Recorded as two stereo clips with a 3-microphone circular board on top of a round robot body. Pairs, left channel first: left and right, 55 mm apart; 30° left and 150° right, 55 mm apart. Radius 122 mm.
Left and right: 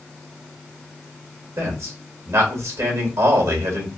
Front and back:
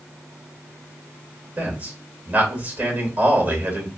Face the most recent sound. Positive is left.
turn(degrees=-90)